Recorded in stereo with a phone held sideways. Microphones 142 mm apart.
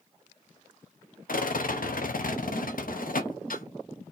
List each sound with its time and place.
1.3 s a rattle: 80° left, 0.5 m